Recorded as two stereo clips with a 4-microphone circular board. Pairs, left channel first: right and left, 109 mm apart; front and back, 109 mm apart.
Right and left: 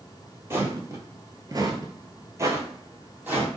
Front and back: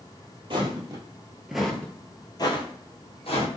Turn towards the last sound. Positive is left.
turn(degrees=20)